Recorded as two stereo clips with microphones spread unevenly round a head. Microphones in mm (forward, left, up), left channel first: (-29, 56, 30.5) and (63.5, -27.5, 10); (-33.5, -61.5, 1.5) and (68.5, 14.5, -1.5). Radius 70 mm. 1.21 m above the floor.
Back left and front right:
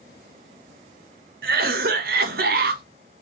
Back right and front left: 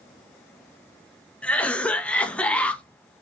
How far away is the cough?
About 1.0 m.